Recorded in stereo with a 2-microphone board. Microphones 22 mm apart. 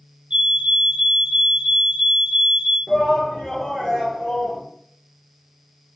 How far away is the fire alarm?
About 5.5 m.